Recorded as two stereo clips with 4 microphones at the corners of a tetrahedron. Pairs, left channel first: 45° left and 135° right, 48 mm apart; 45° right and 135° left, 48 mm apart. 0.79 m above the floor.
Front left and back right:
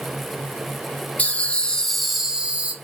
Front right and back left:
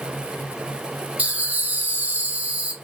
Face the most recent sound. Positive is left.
turn(degrees=-175)